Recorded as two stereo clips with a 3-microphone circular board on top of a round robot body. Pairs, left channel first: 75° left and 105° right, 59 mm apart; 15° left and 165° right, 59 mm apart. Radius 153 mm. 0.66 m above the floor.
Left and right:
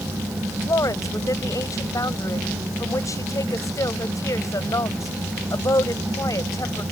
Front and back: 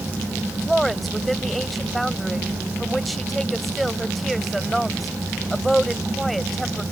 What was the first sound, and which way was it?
A woman speaking, 105° left.